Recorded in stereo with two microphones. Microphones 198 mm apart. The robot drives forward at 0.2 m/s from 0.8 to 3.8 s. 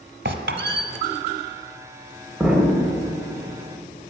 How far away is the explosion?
About 0.6 m.